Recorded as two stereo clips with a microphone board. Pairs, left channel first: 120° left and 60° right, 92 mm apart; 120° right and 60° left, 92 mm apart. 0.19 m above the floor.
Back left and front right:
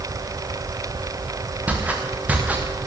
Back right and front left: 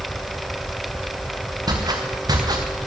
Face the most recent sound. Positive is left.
turn(degrees=15)